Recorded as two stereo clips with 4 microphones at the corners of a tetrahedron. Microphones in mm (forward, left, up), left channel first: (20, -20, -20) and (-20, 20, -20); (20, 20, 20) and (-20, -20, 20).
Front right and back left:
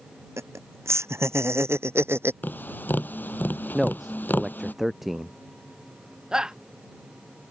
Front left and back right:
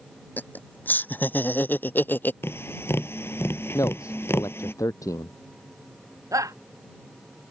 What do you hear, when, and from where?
0.4 s laughter: 100° left; by 2.3 s 95° left
2.4 s tapping: 5° left
3.7 s a man speaking: 50° left
6.3 s a shout: 145° right